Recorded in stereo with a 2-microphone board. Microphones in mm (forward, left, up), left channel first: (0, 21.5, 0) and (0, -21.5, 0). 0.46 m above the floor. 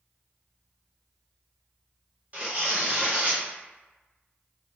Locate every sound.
2.3 s tearing paper: 30° right (ahead or behind), 1.2 m